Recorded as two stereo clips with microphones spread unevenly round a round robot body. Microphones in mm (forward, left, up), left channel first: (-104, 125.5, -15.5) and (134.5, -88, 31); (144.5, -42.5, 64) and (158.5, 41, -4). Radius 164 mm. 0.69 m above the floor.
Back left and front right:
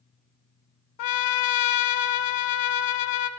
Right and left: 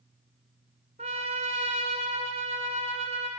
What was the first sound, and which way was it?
A trumpet, 145° left.